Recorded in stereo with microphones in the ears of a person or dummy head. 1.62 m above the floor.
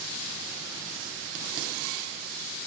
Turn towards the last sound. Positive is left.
No sound to turn to.